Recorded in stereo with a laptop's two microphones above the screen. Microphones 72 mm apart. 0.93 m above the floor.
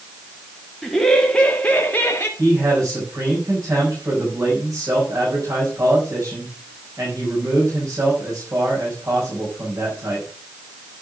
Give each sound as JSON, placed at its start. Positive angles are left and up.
{"t": 0.8, "sound": "laughter", "side_deg": 5, "distance_m": 1.9}
{"t": 2.4, "sound": "a man speaking", "side_deg": -55, "distance_m": 5.5}